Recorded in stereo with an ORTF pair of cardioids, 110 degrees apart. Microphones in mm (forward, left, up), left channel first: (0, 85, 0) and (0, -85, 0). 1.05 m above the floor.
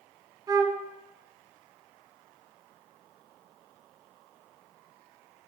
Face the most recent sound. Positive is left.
turn(degrees=-25)